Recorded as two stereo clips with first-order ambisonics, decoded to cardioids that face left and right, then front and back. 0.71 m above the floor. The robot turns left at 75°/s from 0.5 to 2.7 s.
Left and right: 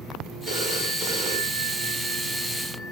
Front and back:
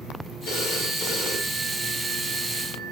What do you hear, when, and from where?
0.5 s a phone ringing: 25° right, 8.5 m; by 2.9 s 170° left, 8.5 m